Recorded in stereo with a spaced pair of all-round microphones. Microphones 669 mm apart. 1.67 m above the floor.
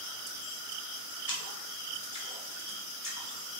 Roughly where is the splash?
Left.